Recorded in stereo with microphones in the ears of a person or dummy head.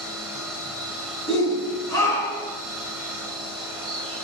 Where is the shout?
20° left (ahead or behind), 4 m.